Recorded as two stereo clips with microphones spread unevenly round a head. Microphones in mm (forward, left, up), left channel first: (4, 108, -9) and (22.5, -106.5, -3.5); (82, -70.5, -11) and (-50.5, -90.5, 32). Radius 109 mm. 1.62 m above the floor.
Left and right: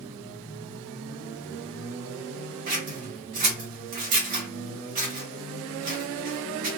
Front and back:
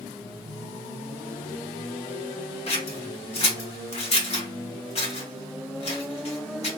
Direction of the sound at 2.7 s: 35° right.